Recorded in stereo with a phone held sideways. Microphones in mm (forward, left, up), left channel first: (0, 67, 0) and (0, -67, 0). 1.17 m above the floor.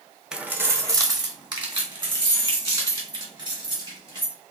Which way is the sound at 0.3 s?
5° right (ahead or behind).